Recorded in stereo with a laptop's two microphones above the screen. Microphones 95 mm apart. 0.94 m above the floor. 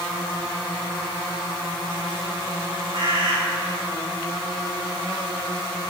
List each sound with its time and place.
2.9 s a bird: 60° right (ahead or behind), 2 m